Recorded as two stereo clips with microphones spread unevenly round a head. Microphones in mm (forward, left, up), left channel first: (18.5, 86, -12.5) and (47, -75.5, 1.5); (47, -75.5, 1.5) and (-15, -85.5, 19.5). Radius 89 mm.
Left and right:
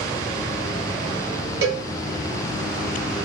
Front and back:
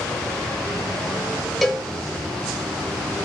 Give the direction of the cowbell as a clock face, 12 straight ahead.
3 o'clock.